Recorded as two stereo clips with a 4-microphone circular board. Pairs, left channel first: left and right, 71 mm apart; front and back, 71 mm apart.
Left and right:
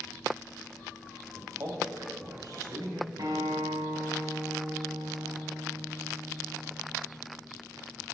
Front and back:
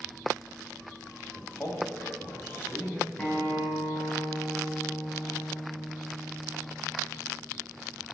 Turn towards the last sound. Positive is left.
turn(degrees=-65)